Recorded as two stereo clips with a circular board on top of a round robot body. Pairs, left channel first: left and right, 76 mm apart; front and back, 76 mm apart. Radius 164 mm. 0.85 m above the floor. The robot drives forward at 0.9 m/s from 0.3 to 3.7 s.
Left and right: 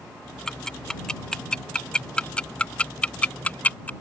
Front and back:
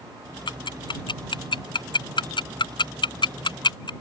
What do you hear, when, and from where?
0.5 s ticking: 10° left; by 3.9 s 20° left